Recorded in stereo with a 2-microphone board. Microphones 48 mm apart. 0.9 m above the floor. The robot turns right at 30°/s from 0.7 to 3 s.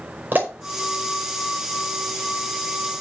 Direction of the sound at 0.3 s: 40° right (ahead or behind).